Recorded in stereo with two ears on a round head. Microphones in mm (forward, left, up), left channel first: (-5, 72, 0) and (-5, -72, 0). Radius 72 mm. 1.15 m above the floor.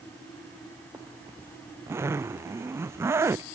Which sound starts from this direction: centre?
A zipper, at 0.9 s.